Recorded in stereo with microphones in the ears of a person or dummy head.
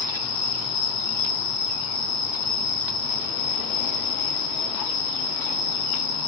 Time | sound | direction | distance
0.0 | an insect | 60° left (ahead or behind) | 1.2 m